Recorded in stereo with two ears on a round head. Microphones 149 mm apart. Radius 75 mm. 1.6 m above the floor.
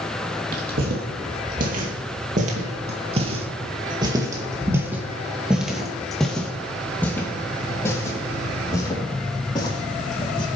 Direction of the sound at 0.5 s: 60° right (ahead or behind).